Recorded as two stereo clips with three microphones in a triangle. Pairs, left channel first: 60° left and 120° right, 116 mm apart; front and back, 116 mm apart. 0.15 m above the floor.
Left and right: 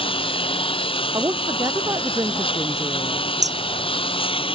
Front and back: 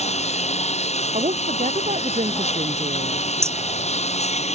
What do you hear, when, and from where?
0.0 s a lawn mower: 20° left
1.1 s a woman speaking: straight behind
3.4 s hammering: 115° right